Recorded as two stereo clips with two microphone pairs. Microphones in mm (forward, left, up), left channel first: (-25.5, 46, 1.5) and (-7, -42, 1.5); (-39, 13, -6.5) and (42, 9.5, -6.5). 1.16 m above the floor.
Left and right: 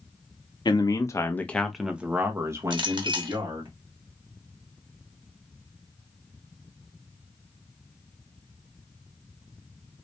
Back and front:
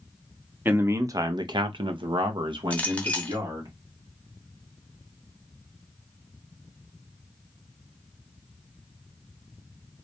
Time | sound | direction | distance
0.7 | a man speaking | 65° left | 0.8 m
2.7 | a clink | 110° right | 0.9 m